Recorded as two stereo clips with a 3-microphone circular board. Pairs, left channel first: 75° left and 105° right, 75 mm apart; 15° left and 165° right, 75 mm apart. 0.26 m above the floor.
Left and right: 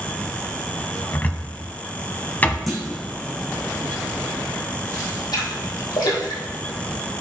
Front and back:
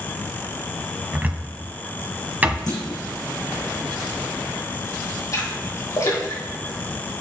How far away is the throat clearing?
No throat clearing in this recording.